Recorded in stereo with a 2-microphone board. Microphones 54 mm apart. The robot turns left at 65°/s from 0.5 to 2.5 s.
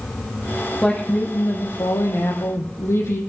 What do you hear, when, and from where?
0.8 s a woman speaking: 170° left, 4.5 m; by 3.2 s 60° left, 4.5 m